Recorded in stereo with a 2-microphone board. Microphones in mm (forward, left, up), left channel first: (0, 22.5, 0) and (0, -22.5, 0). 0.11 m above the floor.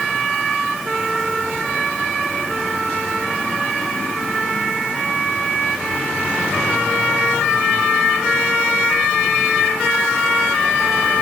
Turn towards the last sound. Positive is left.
No sound to turn to.